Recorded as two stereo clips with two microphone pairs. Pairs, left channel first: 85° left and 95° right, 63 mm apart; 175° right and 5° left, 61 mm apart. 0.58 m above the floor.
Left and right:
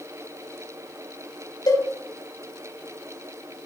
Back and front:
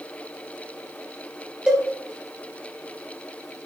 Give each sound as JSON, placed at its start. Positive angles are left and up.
{"t": 1.7, "sound": "a cowbell", "azimuth_deg": 75, "distance_m": 3.5}